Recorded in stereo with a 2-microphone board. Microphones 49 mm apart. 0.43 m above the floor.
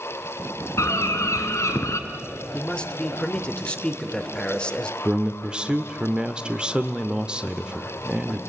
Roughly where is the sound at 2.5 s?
Left.